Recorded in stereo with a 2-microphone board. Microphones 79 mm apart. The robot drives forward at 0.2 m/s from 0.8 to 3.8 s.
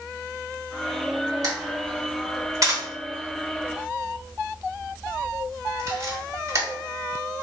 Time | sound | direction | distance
1.4 | a camera shutter | 50° right (ahead or behind) | 1.3 m